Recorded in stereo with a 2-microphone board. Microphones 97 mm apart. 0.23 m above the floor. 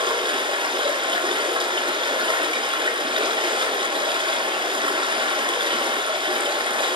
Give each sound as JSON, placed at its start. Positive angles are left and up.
{"t": 0.0, "sound": "running water", "side_deg": -55, "distance_m": 1.0}